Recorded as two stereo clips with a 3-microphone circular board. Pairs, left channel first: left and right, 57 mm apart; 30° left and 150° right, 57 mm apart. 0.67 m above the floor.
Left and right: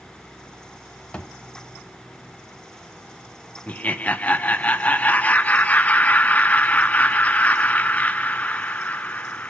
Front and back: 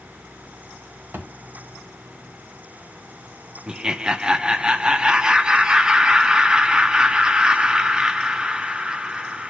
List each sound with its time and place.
1.1 s a thud: 160° left, 1.3 m
3.7 s laughter: 140° left, 0.7 m